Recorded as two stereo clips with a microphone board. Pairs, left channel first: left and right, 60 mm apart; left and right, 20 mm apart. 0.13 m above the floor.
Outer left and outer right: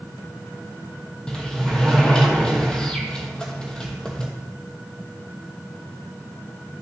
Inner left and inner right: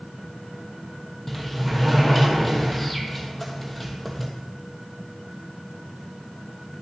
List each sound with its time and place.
1.3 s a sliding door: 15° left (ahead or behind), 1.1 m